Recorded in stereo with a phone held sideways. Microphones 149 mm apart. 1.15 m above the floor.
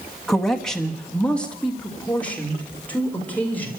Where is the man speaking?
Centre (ahead or behind), 1.6 m; by 3.7 s 10° left (ahead or behind), 4.5 m.